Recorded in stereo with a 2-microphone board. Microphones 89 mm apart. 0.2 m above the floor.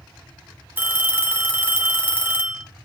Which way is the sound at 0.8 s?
25° right (ahead or behind).